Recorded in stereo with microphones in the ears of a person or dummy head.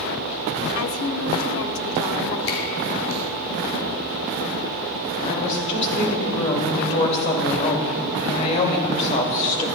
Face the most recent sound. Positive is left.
turn(degrees=35)  # may be behind; listen again after turning